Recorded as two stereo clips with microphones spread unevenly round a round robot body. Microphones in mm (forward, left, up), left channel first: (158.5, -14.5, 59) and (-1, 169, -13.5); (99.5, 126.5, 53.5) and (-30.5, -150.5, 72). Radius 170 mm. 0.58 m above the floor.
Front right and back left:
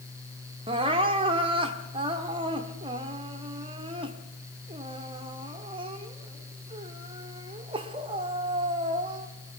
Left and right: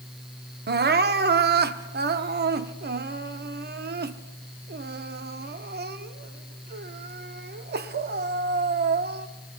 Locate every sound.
0.7 s crying: 170° right, 0.9 m